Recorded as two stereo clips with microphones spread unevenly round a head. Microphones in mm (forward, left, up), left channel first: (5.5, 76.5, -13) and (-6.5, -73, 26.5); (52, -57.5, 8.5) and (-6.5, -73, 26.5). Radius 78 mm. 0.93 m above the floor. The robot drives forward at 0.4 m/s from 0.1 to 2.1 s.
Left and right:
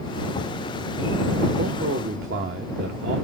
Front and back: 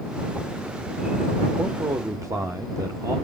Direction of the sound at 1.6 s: 110° right.